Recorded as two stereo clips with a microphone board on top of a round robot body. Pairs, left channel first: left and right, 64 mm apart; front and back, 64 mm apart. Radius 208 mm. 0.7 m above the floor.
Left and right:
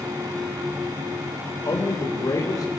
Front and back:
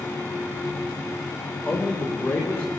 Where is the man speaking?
60° left, 4.5 m.